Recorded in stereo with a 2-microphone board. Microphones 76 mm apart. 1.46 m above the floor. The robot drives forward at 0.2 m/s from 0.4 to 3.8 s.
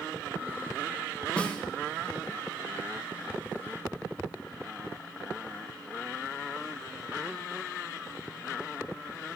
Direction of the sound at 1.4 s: 15° left (ahead or behind).